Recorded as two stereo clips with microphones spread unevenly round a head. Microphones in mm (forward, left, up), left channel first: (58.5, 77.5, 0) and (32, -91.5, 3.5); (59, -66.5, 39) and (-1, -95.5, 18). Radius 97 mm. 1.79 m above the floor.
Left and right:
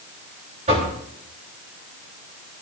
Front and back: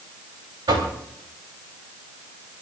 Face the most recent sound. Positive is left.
turn(degrees=-160)